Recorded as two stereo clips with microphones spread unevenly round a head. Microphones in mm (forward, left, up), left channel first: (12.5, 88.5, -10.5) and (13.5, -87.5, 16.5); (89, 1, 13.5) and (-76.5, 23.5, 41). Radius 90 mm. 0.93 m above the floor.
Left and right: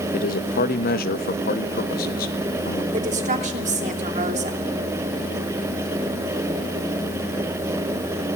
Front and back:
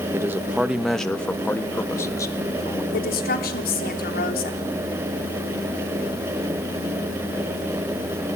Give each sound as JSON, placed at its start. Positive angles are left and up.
{"t": 0.1, "sound": "a man speaking", "azimuth_deg": 95, "distance_m": 1.0}
{"t": 2.9, "sound": "a woman speaking", "azimuth_deg": -35, "distance_m": 3.0}